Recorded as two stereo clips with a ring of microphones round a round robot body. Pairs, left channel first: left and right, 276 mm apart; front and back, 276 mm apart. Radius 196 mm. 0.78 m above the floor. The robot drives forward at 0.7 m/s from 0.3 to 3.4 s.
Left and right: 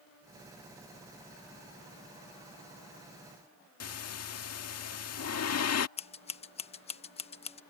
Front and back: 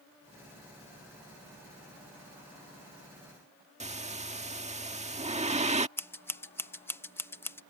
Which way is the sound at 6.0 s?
70° left.